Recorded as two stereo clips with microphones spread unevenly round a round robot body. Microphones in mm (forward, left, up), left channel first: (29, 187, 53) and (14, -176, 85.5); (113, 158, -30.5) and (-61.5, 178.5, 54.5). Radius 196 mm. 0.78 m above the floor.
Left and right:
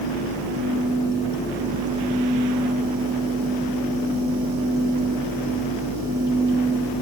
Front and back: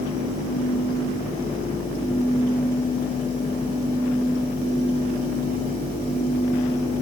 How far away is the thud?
No thud in this recording.